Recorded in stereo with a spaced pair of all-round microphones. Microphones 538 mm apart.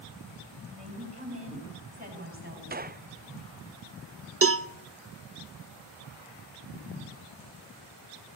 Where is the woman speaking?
20° right (ahead or behind), 7.5 m; by 2.6 s 25° right (ahead or behind), 9 m.